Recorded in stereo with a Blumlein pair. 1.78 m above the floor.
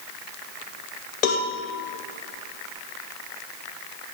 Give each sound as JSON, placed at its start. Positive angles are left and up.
{"t": 1.2, "sound": "a cowbell", "azimuth_deg": 40, "distance_m": 1.1}